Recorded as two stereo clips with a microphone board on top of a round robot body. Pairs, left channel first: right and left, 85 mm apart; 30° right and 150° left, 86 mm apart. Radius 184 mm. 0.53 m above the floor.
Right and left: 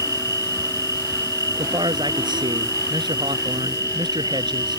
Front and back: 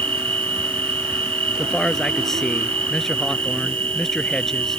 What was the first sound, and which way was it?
An insect, 140° left.